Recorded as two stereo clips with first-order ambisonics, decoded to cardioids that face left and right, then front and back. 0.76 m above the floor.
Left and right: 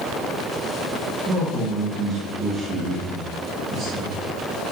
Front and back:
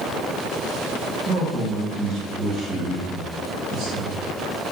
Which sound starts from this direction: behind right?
A man speaking, at 1.2 s.